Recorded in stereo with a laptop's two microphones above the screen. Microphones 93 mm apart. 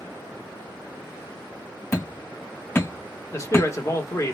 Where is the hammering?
35° left (ahead or behind), 1.0 m.